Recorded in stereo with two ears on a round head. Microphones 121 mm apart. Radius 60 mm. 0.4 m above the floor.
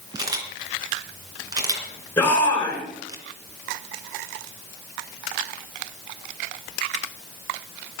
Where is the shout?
10° left (ahead or behind), 5.5 m.